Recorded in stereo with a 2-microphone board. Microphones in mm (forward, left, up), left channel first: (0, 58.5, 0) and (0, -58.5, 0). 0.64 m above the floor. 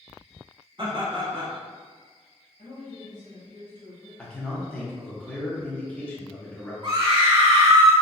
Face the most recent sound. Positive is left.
turn(degrees=-40)  # may be behind; listen again after turning